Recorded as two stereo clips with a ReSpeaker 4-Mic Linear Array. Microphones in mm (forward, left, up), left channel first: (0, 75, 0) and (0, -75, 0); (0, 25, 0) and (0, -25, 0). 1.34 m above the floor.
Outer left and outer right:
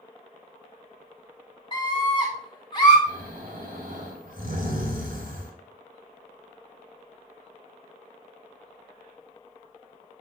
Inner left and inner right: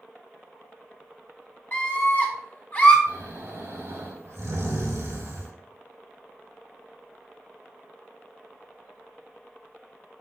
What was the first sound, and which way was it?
A scream, 30° left (ahead or behind).